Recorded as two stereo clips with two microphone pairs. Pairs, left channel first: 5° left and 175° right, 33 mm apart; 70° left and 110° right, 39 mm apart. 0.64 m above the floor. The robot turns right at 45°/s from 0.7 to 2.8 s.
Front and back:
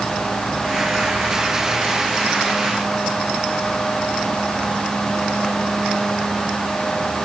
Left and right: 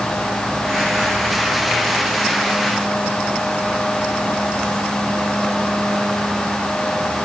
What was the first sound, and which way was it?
Only background noise.